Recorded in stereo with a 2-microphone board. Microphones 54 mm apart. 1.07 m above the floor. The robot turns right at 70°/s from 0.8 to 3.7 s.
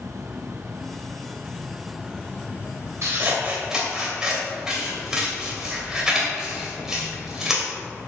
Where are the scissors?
60° right (ahead or behind), 2.5 m; by 7.7 s 10° right (ahead or behind), 2.5 m.